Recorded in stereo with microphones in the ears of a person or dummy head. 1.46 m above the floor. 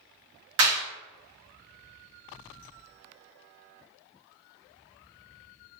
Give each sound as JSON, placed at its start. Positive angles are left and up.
{"t": 0.6, "sound": "a clap", "side_deg": -75, "distance_m": 1.8}